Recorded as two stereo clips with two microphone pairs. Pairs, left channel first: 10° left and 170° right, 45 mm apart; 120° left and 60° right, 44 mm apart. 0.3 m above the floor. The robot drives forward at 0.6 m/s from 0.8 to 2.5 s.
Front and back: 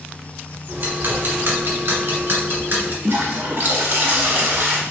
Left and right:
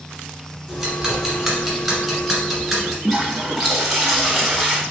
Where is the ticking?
150° right, 1.8 m; by 2.9 s 160° right, 2.5 m.